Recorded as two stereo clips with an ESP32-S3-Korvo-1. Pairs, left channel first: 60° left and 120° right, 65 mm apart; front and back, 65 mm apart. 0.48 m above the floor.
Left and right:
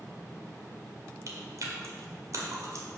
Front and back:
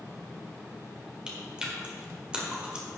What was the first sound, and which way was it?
Chewing, 110° right.